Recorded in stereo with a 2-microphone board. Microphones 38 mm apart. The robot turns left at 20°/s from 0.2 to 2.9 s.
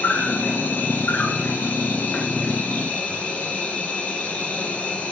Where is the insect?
105° left, 1.5 m; by 5.1 s 50° left, 1.5 m.